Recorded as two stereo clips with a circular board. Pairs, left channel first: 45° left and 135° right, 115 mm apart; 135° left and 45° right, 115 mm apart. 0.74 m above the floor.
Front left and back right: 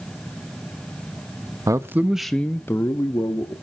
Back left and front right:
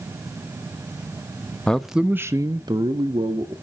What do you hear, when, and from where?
1.7 s a man speaking: 150° right, 0.7 m; by 3.5 s 5° right, 1.4 m